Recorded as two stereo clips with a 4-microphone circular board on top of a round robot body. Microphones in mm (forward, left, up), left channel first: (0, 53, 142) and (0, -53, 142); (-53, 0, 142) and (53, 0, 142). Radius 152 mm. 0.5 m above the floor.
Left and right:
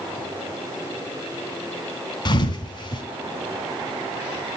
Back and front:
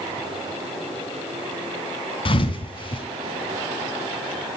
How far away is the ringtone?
No ringtone in this recording.